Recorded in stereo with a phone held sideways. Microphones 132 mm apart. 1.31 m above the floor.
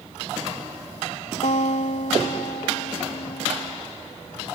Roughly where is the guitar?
Left.